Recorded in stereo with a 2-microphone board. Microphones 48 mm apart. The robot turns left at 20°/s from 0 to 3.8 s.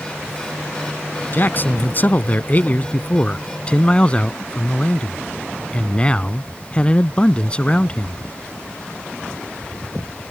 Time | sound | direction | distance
1.3 | a man speaking | 85° left | ?